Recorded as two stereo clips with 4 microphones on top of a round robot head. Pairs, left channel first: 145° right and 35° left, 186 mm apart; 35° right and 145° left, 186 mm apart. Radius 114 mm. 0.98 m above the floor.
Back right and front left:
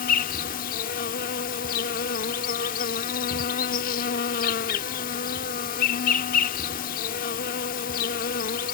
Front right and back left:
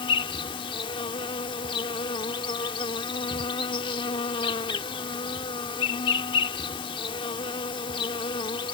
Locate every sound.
0.0 s an insect: 100° right